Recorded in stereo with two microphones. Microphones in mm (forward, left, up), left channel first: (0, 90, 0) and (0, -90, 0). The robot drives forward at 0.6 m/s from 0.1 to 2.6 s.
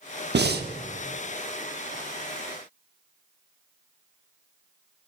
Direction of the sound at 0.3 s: 70° right (ahead or behind).